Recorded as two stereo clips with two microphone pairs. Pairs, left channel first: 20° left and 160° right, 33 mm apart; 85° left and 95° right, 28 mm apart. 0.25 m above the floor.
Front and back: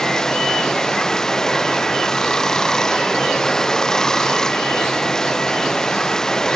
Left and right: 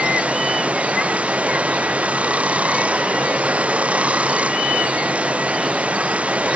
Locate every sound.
0.0 s running water: 55° right